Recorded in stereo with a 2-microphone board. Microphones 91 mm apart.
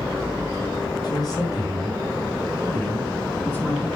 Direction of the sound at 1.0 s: 50° left (ahead or behind).